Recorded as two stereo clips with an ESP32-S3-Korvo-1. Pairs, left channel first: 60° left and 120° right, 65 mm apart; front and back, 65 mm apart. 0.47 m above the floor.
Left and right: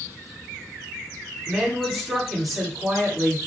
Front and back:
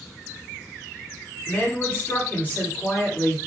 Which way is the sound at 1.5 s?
35° right.